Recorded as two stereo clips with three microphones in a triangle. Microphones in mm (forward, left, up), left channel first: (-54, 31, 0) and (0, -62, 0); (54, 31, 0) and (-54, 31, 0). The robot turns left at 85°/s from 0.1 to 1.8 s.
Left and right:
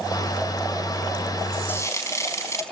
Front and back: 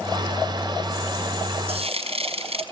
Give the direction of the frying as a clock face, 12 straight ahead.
6 o'clock.